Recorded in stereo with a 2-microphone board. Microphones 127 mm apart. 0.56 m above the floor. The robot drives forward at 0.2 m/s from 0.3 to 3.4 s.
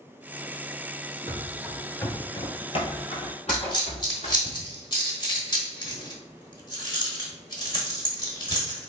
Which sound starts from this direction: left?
A dropped coin, at 3.5 s.